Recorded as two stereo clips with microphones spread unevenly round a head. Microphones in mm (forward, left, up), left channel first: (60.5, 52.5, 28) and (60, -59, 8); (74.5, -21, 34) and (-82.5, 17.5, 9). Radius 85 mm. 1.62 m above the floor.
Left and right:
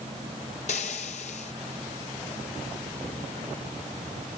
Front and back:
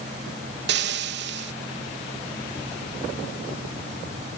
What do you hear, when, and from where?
0.7 s frying: 140° left